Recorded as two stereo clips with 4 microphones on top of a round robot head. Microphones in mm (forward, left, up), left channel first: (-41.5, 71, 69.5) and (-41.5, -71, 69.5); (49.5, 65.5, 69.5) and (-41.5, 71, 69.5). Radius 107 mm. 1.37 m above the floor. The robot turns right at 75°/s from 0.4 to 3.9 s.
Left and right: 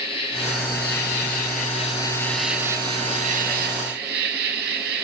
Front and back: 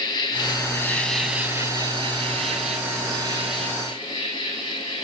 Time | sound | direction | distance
0.0 | an insect | 30° left | 2.5 m